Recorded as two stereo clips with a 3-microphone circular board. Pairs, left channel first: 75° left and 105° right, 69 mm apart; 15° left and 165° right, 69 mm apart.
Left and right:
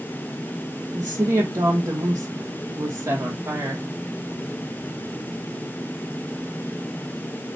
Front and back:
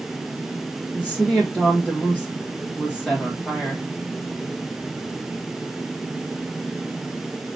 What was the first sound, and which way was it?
A woman speaking, 65° right.